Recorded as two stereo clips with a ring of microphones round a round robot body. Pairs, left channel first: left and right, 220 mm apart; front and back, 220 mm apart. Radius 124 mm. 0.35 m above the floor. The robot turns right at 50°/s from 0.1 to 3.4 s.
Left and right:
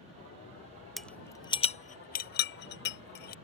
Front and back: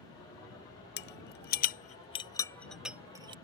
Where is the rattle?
Straight ahead; by 3.4 s 120° left.